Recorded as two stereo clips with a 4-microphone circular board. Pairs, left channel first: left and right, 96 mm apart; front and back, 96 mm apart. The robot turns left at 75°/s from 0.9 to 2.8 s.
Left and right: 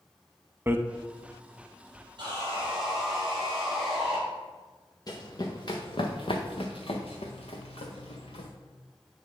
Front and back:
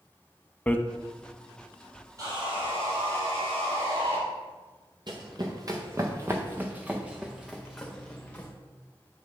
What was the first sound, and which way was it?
Hammering, 55° right.